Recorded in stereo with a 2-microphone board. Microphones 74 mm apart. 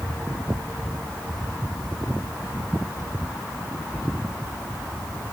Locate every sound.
Only background noise.